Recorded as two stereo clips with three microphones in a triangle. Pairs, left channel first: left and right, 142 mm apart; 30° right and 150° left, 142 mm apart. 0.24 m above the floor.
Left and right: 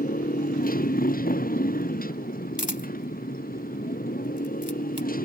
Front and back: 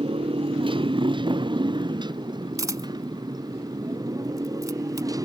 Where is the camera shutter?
90° left.